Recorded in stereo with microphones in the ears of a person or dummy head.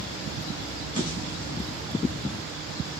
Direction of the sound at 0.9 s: 25° left (ahead or behind).